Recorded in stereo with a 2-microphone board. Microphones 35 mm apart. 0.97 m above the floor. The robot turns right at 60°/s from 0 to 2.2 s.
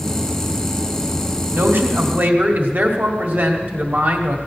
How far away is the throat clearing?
I don't hear throat clearing.